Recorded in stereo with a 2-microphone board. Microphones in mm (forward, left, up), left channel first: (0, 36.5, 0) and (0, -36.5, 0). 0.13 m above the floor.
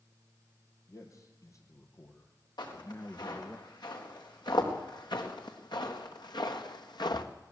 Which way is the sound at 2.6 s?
80° left.